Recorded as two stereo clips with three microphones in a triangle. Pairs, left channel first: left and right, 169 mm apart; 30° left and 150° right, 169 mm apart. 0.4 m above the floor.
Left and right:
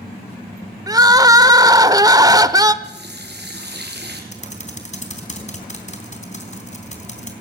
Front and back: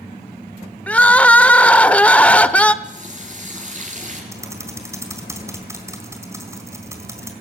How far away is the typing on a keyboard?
About 3.5 m.